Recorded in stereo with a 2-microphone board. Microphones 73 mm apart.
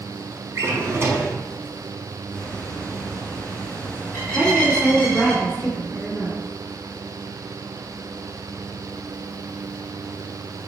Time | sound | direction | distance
0.6 | a drawer | 40° right (ahead or behind) | 0.8 m
2.3 | a bird | 20° left (ahead or behind) | 2.0 m
4.3 | a woman speaking | centre (ahead or behind) | 1.3 m